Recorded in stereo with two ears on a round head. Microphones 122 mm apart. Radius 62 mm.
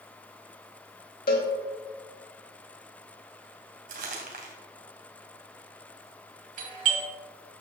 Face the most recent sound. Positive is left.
turn(degrees=-70)  # may be behind; listen again after turning